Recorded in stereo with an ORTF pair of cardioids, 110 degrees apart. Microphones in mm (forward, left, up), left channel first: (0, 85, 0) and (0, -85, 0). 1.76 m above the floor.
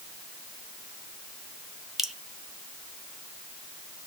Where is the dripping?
Straight ahead, 1.0 m.